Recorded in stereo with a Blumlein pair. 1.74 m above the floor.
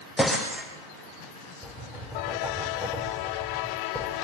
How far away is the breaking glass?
About 6.5 m.